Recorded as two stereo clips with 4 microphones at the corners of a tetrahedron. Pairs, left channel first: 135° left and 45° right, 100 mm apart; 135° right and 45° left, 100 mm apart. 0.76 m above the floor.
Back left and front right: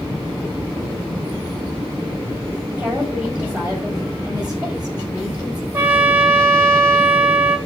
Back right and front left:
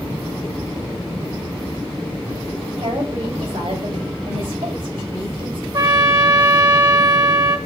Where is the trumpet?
20° left, 1.6 m.